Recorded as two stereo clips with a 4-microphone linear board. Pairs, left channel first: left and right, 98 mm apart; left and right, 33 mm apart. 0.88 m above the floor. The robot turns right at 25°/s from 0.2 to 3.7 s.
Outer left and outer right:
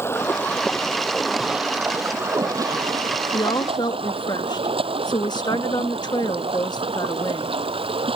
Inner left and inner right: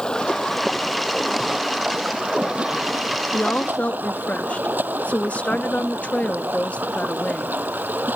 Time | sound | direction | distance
0.0 | running water | 155° left | ?
3.3 | a woman speaking | 50° left (ahead or behind) | ?